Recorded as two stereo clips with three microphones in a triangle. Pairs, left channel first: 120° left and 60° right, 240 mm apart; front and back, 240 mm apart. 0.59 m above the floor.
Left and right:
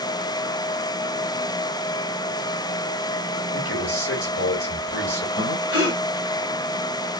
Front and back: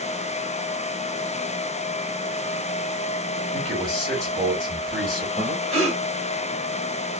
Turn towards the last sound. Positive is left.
turn(degrees=120)